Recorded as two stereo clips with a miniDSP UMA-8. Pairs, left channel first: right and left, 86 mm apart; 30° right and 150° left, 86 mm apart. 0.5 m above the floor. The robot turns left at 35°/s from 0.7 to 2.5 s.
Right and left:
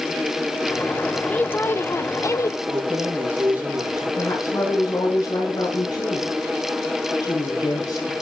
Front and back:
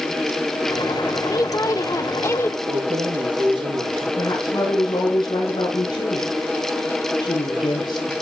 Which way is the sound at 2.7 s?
155° left.